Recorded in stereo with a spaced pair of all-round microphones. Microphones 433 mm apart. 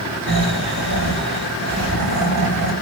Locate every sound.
0.3 s snoring: 55° right (ahead or behind), 2.5 m